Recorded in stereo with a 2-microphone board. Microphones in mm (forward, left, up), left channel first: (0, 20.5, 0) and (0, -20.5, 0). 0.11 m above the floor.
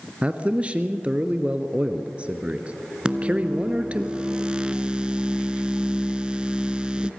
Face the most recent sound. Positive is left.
turn(degrees=-20)  # may be behind; listen again after turning